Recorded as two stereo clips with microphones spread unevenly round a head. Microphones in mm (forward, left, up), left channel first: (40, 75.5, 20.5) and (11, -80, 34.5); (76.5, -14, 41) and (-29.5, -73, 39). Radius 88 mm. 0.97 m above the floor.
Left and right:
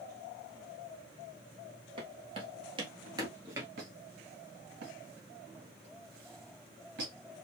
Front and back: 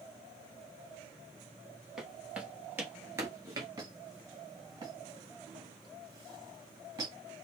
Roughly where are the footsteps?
Ahead right.